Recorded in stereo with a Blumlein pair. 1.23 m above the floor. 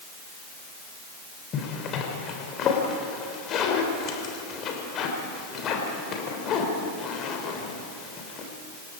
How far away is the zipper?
About 3.5 m.